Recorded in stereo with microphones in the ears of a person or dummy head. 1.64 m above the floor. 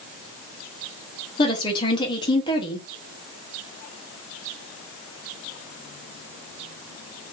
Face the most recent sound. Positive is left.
turn(degrees=25)  # may be behind; listen again after turning